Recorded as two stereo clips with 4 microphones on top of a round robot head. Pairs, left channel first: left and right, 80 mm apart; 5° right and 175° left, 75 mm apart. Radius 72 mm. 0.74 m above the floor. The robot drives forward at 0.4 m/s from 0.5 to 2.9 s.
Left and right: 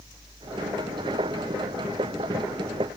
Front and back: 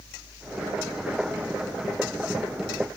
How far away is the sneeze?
No sneeze in this recording.